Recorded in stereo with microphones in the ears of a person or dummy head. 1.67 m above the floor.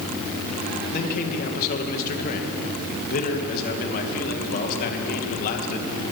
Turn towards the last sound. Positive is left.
turn(degrees=50)  # may be behind; listen again after turning